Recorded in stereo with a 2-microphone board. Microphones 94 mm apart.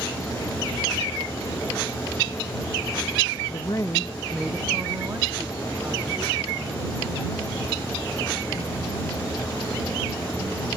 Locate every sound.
3.5 s a woman speaking: 60° left (ahead or behind); by 10.7 s 50° right (ahead or behind)